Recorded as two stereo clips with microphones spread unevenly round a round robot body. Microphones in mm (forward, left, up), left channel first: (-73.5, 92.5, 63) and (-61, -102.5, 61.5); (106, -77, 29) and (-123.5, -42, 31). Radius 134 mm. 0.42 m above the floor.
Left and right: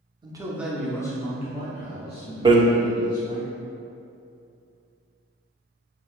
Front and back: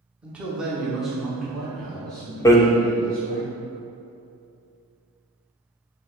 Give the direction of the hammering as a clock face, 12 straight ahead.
2 o'clock.